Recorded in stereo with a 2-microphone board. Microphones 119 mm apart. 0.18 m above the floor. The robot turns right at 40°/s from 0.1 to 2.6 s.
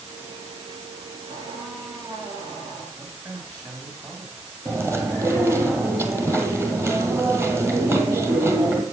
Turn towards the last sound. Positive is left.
turn(degrees=-20)  # may be behind; listen again after turning